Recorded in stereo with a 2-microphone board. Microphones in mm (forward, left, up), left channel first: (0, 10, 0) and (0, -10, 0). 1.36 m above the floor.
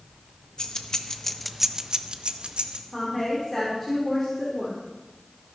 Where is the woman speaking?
20° left (ahead or behind), 3 m.